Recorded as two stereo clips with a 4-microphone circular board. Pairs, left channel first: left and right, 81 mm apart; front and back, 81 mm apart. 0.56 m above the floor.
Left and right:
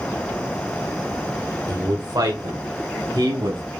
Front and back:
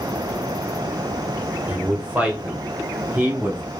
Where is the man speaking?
110° right, 1.8 m.